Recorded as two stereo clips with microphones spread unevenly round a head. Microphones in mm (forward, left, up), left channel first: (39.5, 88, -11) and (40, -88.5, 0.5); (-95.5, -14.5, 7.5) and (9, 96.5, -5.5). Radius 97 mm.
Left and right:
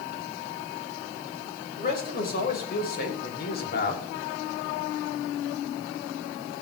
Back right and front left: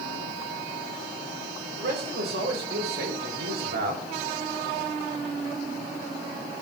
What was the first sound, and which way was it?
A man speaking, 55° left.